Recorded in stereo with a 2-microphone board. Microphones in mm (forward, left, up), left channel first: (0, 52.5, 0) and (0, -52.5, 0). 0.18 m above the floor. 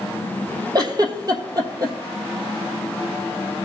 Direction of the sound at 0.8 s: 35° right (ahead or behind).